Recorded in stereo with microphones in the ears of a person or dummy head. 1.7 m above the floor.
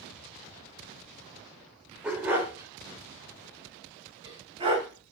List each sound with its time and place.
2.0 s a dog barking: 5° right (ahead or behind), 1.8 m; by 4.9 s 35° right (ahead or behind), 3 m